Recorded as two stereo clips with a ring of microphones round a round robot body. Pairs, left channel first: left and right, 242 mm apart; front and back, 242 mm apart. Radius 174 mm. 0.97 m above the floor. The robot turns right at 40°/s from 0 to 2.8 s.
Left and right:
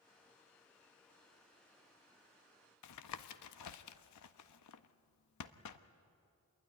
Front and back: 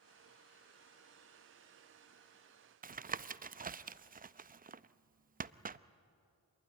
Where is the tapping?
120° left, 0.6 m.